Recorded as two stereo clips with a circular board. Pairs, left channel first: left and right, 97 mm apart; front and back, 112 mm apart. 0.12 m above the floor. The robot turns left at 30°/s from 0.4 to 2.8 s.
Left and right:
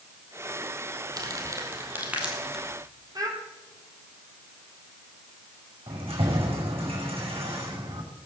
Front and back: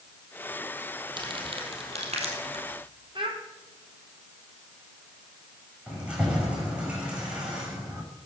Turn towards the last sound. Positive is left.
turn(degrees=-100)